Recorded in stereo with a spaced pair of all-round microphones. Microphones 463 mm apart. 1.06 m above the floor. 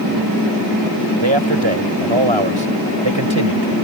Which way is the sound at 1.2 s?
80° right.